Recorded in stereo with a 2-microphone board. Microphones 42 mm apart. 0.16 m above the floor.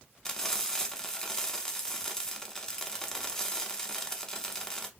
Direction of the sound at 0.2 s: 15° left (ahead or behind).